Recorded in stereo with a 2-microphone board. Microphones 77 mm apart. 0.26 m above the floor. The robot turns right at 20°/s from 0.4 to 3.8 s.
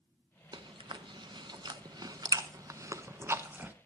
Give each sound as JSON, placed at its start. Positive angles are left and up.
{"t": 0.5, "sound": "chewing", "side_deg": -75, "distance_m": 0.7}